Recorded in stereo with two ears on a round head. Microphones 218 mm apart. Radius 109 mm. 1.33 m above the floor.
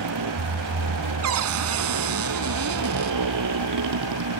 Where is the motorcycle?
85° right.